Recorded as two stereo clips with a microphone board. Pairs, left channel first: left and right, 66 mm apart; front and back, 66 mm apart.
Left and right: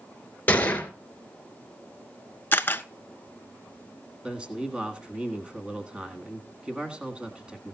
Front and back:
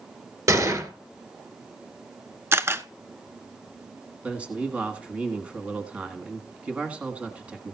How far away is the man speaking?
About 1.4 m.